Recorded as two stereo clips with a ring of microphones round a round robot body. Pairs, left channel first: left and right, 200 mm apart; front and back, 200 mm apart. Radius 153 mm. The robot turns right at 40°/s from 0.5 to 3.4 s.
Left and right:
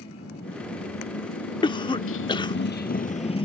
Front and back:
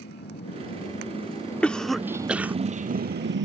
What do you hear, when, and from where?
0.0 s a motorcycle: 35° left; by 3.4 s 155° left
1.6 s a cough: 75° left; by 2.6 s 115° left